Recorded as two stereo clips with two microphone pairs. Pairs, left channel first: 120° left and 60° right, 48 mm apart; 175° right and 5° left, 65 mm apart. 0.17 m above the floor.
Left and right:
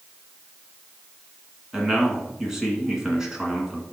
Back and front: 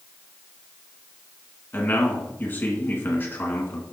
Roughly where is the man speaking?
Behind right.